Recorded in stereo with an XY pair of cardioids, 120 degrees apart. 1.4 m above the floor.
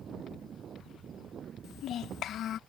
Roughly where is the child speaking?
Ahead left.